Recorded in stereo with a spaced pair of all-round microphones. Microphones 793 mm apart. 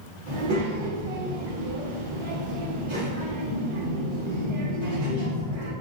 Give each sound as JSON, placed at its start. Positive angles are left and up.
{"t": 0.3, "sound": "a child speaking", "side_deg": -70, "distance_m": 1.7}